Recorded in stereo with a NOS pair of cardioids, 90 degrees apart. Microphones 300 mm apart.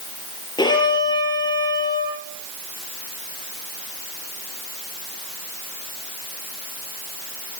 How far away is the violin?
About 9.5 m.